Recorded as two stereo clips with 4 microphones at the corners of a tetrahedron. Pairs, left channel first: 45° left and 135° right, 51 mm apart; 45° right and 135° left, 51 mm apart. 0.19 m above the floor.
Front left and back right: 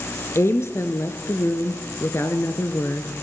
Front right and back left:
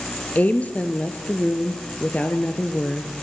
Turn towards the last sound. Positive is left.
turn(degrees=15)